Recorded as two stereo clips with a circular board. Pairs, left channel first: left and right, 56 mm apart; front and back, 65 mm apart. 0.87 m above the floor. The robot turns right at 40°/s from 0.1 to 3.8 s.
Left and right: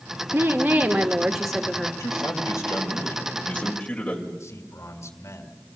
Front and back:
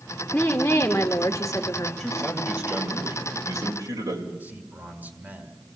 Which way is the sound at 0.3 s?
50° right.